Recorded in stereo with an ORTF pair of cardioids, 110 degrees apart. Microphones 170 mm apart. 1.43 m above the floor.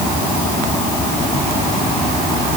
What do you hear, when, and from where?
Only background noise.